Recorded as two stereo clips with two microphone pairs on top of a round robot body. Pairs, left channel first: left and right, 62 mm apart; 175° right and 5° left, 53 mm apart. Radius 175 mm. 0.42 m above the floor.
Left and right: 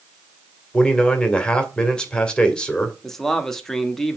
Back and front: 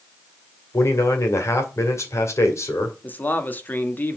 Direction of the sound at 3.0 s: 150° left.